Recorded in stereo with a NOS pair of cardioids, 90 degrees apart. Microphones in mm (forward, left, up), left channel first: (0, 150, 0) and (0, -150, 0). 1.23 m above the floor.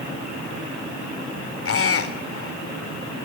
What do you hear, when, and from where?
1.6 s a squeak: 45° left, 3.5 m